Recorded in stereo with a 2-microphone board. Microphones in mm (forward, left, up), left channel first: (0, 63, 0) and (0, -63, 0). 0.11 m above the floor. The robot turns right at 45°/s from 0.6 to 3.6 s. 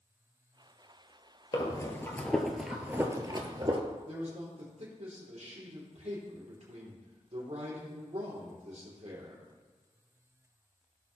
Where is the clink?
I don't hear a clink.